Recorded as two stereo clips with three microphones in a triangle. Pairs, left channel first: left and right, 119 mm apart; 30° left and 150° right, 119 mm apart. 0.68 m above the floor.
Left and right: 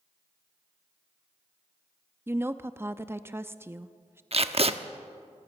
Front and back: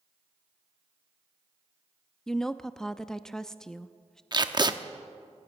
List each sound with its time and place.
2.3 s a woman speaking: 50° right, 0.6 m
4.3 s tape being pulled: 105° right, 0.9 m